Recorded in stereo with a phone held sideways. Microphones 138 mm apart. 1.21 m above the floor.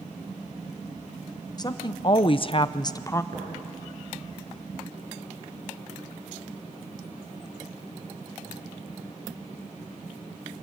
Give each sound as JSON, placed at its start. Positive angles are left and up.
{"t": 1.6, "sound": "a woman speaking", "side_deg": 30, "distance_m": 0.9}
{"t": 3.3, "sound": "tapping", "side_deg": -75, "distance_m": 8.5}